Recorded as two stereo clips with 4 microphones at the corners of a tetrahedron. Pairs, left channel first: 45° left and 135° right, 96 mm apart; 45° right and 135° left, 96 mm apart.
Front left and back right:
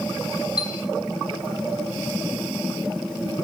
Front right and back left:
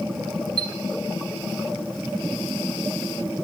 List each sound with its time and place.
0.6 s a chime: 95° left, 0.6 m